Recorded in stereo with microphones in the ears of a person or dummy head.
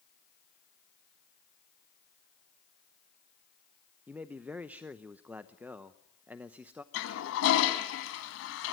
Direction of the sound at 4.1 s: 5° right (ahead or behind).